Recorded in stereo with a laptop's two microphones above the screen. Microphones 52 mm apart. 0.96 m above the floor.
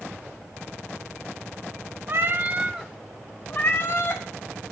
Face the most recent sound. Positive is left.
turn(degrees=50)  # may be behind; listen again after turning